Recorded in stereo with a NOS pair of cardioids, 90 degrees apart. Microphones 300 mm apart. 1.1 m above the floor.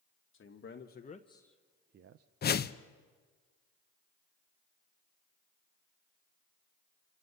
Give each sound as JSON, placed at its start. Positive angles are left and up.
{"t": 0.3, "sound": "a man speaking", "azimuth_deg": 45, "distance_m": 1.4}
{"t": 2.4, "sound": "a whoosh", "azimuth_deg": 35, "distance_m": 0.6}